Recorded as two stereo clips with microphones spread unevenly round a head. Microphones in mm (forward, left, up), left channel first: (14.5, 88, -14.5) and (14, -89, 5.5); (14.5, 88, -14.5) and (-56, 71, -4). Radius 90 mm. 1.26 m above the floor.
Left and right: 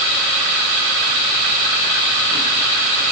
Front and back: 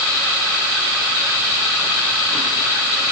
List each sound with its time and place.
Only background noise.